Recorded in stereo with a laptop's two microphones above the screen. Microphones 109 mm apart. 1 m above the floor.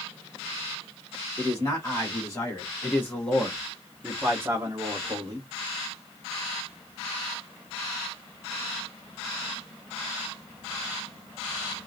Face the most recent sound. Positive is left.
turn(degrees=-45)  # may be behind; listen again after turning